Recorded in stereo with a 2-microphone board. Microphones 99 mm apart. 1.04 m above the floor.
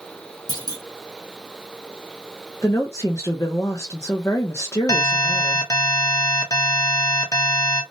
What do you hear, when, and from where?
0.5 s a clunk: 45° left (ahead or behind), 0.8 m
2.6 s a woman speaking: 30° left (ahead or behind), 0.6 m
4.9 s an alarm: 35° left (ahead or behind), 0.8 m